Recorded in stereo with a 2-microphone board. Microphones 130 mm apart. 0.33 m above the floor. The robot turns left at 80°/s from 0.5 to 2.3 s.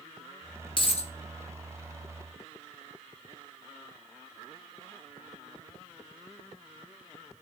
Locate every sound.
0.8 s a dropped coin: 40° left (ahead or behind), 0.6 m; by 1.1 s 65° left (ahead or behind), 0.6 m